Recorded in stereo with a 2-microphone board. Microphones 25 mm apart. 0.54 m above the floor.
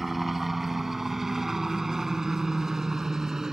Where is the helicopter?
10° right (ahead or behind); by 3.5 s 25° right (ahead or behind).